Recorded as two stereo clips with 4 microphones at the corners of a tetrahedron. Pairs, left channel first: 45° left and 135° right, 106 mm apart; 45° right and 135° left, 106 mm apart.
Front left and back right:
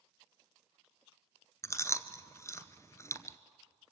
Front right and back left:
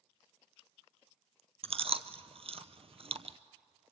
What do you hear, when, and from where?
1.6 s chewing: 110° left, 0.8 m